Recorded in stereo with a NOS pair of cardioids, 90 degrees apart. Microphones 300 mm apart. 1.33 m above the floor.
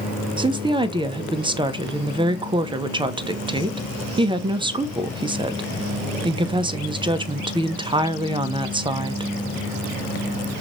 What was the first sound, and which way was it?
A woman speaking, 15° right.